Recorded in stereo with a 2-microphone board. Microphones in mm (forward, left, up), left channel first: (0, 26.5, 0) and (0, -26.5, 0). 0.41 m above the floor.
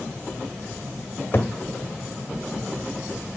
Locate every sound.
1.3 s a cupboard door: 45° left (ahead or behind), 1.6 m